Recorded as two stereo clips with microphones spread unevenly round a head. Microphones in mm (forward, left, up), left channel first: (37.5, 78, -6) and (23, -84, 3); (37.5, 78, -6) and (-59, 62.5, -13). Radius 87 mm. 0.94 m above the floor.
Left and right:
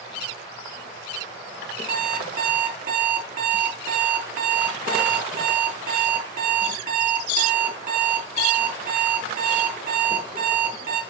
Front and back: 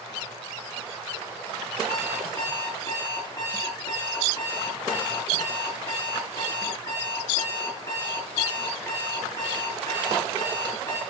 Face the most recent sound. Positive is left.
turn(degrees=-60)